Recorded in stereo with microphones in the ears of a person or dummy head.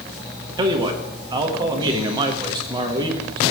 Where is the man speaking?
25° right (ahead or behind), 1.1 m.